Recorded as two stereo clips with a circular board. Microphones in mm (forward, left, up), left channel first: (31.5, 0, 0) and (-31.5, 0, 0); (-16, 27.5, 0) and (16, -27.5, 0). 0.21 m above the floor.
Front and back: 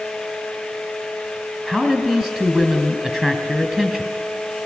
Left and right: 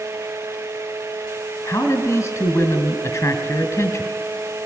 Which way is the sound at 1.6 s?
105° left.